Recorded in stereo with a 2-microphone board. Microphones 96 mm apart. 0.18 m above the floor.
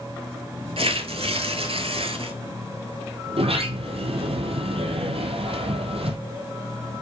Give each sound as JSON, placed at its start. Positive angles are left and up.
{"t": 0.8, "sound": "tearing paper", "side_deg": -75, "distance_m": 0.9}
{"t": 3.3, "sound": "a sliding door", "side_deg": -80, "distance_m": 0.9}